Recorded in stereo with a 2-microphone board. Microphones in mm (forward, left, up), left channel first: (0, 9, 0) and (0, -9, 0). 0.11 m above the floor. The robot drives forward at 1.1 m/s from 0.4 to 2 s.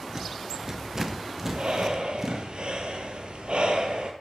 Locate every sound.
0.1 s a rattle: 30° right (ahead or behind), 0.5 m; by 2.5 s 10° right (ahead or behind), 1.9 m
1.5 s breathing: 55° right (ahead or behind), 1.3 m; by 4.1 s 65° right (ahead or behind), 1.2 m